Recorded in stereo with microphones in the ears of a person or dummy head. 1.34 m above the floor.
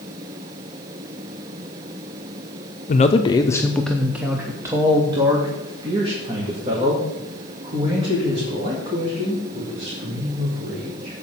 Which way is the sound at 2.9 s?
40° left (ahead or behind).